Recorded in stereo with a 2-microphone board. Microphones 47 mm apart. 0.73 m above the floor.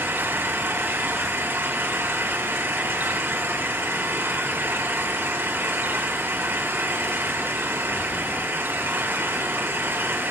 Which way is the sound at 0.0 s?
60° right (ahead or behind).